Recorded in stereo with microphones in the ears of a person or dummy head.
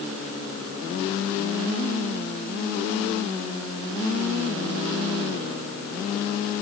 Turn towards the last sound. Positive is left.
No sound to turn to.